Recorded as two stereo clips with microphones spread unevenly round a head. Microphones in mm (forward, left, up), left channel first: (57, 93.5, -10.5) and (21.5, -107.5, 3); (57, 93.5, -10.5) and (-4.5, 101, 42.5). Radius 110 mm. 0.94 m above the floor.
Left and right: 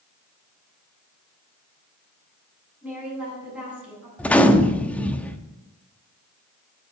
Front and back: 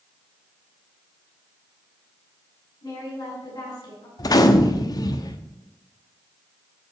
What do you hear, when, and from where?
2.8 s a woman speaking: 15° right, 9 m
4.2 s a gunshot: 5° right, 1.1 m